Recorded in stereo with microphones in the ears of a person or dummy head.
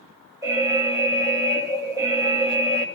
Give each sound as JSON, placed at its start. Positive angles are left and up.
{"t": 0.4, "sound": "an alarm", "side_deg": -5, "distance_m": 1.3}